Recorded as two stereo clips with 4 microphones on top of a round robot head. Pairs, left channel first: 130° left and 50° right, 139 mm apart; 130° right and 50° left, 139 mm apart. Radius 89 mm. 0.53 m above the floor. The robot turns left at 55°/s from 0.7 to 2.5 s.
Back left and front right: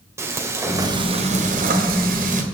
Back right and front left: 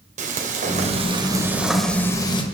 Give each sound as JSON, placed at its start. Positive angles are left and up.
{"t": 0.2, "sound": "frying", "azimuth_deg": 20, "distance_m": 2.0}